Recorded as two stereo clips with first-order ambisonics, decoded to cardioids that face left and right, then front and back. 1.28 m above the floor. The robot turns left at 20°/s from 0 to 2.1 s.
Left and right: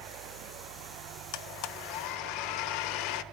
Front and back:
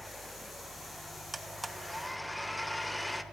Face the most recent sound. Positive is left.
turn(degrees=85)